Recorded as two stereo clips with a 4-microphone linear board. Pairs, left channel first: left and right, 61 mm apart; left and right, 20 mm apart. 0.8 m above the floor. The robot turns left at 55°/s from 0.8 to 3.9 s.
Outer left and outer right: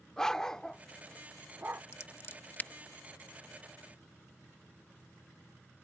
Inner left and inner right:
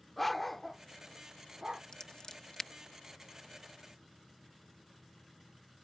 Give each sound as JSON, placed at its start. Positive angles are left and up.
{"t": 0.2, "sound": "a dog barking", "side_deg": 10}
{"t": 1.9, "sound": "scissors", "side_deg": 50}